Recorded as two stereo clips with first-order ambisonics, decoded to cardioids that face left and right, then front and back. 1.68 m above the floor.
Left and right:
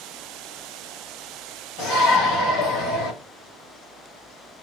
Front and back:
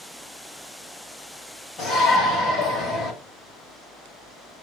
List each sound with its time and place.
1.8 s a shout: 55° left, 6.5 m; by 3.1 s 70° left, 6.5 m